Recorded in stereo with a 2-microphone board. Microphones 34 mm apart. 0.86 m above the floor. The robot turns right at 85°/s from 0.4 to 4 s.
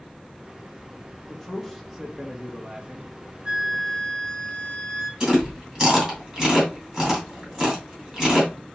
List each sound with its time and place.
1.3 s a man speaking: 135° left, 1.0 m; by 3.1 s 70° right, 1.0 m
3.5 s a flute: 30° right, 1.0 m; by 5.1 s 15° left, 1.0 m
5.2 s chewing: 25° right (ahead or behind), 2.5 m